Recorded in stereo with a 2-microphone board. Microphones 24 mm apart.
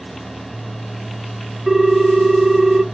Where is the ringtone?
10° right (ahead or behind), 0.8 m.